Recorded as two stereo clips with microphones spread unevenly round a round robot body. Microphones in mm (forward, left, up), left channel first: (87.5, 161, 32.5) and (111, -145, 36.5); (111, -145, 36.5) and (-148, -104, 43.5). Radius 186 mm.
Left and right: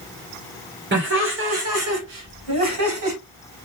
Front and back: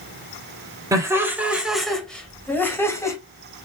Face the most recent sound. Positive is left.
turn(degrees=-85)